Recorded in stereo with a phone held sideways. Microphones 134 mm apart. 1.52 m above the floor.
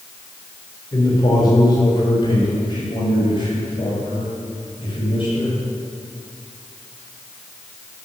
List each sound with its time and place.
0.9 s a man speaking: 30° left (ahead or behind), 4.5 m; by 5.5 s 40° left (ahead or behind), 8 m